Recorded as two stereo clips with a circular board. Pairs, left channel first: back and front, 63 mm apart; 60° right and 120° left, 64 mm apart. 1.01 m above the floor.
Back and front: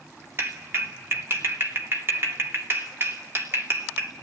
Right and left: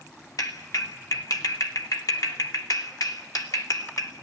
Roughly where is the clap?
Ahead right.